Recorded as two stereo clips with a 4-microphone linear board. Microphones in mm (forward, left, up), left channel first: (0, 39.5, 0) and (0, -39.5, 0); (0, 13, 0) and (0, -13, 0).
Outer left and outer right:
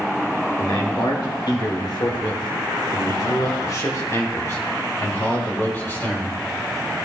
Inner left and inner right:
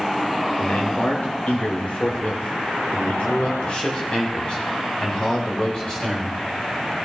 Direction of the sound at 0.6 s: 75° left (ahead or behind).